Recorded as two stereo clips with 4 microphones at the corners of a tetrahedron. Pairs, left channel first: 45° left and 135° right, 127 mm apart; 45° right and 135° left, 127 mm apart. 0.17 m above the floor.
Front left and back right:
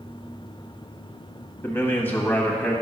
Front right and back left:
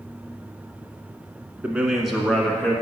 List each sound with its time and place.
1.6 s a man speaking: 80° left, 1.1 m; by 2.8 s 20° right, 1.2 m